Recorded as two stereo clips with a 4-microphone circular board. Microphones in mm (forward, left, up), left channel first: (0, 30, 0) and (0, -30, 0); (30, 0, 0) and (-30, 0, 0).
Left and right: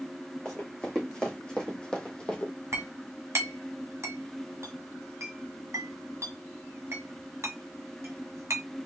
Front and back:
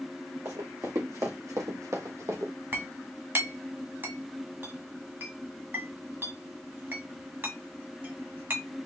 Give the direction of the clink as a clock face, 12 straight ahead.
4 o'clock.